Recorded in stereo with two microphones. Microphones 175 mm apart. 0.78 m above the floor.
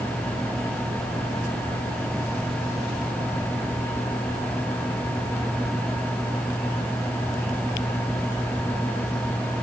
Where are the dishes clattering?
No dishes clattering in this recording.